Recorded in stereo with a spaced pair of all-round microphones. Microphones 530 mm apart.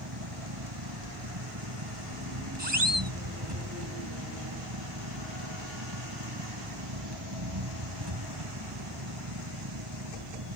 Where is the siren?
50° right (ahead or behind).